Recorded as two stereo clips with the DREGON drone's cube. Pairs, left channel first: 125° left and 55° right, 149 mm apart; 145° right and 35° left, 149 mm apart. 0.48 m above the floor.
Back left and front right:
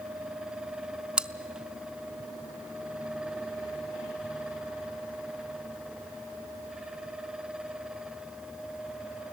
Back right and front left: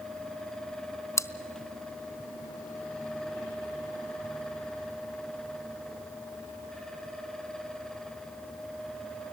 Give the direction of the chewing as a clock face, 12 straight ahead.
4 o'clock.